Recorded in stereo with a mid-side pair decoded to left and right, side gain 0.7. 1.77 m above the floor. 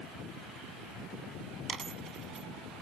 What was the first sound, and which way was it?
A dropped coin, 30° right.